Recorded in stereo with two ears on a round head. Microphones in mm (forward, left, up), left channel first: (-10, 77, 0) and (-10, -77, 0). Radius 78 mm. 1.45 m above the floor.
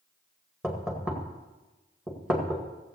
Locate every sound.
0.6 s knocking: 5° right (ahead or behind), 1.7 m